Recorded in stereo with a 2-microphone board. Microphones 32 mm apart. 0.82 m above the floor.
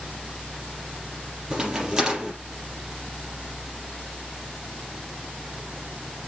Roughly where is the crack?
Centre.